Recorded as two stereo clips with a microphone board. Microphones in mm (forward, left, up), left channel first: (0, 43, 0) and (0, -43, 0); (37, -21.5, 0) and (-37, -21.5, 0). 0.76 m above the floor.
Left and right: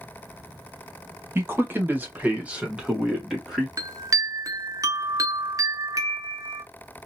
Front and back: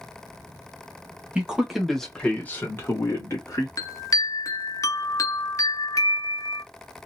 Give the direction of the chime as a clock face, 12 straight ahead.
1 o'clock.